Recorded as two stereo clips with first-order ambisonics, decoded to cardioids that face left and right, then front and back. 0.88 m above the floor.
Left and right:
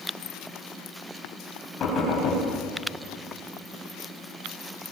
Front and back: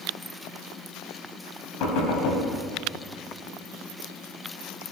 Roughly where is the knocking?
Ahead left.